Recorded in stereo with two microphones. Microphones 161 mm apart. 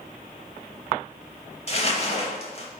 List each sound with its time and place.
1.7 s crumpling: 40° left (ahead or behind), 0.9 m